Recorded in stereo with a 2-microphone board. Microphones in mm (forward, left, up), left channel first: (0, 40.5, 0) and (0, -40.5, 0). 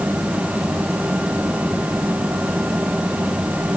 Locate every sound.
Only background noise.